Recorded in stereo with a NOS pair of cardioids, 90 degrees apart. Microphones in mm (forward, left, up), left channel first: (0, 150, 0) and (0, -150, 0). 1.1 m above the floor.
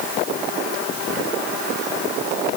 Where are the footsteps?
No footsteps in this recording.